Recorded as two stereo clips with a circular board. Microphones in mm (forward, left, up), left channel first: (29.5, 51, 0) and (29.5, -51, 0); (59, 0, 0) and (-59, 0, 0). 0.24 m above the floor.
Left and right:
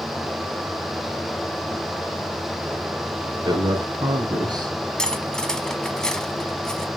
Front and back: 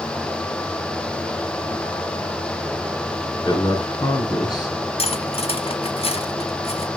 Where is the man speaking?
50° right, 3 m.